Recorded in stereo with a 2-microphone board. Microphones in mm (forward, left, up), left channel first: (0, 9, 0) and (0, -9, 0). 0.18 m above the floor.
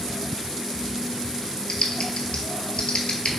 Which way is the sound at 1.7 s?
70° left (ahead or behind).